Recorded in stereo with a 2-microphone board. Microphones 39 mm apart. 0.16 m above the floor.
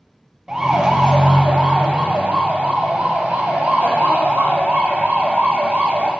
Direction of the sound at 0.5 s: 15° right (ahead or behind).